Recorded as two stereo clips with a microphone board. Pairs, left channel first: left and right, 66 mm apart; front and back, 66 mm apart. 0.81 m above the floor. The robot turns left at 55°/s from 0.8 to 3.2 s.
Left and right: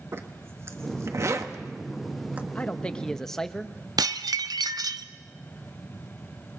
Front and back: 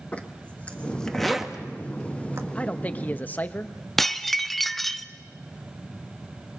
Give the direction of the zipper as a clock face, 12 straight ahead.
2 o'clock.